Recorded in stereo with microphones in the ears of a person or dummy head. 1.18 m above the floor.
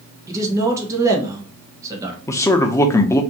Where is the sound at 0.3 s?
10° right (ahead or behind), 1.1 m.